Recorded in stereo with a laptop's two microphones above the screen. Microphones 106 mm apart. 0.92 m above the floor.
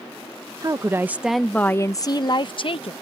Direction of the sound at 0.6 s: 35° right (ahead or behind).